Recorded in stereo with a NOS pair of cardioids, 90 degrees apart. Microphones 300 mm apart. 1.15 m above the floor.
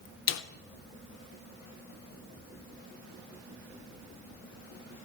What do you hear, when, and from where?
0.3 s a snare drum: 65° left, 0.8 m